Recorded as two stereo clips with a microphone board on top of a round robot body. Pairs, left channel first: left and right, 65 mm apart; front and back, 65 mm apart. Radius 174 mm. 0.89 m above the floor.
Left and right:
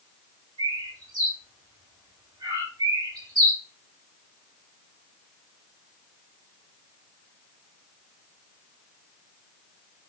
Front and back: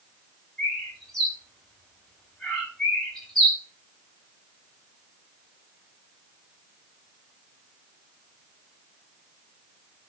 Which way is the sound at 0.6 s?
85° right.